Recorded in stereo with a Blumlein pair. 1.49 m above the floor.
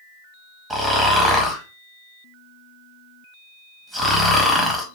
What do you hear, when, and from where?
0.7 s snoring: 15° right, 1.3 m